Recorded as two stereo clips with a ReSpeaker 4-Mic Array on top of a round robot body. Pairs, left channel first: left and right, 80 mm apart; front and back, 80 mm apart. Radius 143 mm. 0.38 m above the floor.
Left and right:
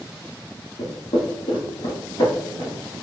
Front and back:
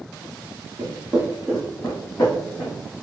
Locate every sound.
0.8 s footsteps: 125° left, 0.9 m; by 2.9 s 30° left, 1.4 m